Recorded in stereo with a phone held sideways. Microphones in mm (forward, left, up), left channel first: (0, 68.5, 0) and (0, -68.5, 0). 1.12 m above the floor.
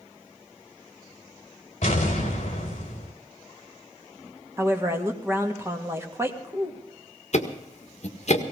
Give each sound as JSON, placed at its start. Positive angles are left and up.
{"t": 1.8, "sound": "an explosion", "side_deg": 55, "distance_m": 3.5}
{"t": 4.6, "sound": "a woman speaking", "side_deg": -20, "distance_m": 1.9}
{"t": 7.3, "sound": "ticking", "side_deg": 55, "distance_m": 1.6}